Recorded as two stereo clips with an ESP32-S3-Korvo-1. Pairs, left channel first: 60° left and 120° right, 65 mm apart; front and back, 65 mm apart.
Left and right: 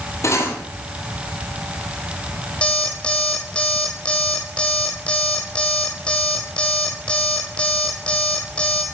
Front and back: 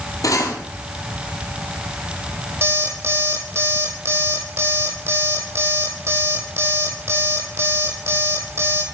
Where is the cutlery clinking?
20° left, 2 m.